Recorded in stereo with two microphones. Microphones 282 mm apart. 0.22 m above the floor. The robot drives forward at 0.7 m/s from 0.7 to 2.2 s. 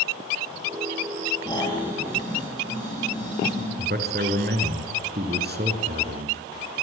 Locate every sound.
1.4 s snoring: 15° left (ahead or behind), 7 m
3.8 s a man speaking: 35° right (ahead or behind), 3.5 m